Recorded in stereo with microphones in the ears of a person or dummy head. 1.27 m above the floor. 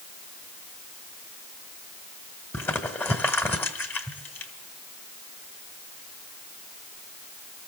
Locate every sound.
2.5 s crumpling: 10° left (ahead or behind), 2 m